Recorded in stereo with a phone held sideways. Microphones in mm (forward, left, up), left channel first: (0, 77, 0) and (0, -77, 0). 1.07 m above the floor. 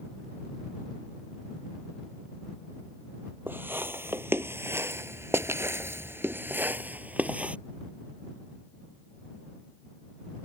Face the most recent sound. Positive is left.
turn(degrees=-10)  # may be behind; listen again after turning